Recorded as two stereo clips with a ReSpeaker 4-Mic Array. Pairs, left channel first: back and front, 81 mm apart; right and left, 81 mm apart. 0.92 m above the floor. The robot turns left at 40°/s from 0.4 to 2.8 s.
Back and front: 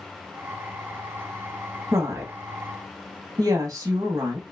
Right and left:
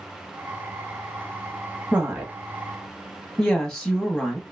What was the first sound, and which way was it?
A woman speaking, 20° left.